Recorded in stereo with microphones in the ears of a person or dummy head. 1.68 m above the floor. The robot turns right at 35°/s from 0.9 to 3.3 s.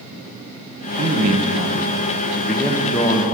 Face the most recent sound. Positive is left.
turn(degrees=30)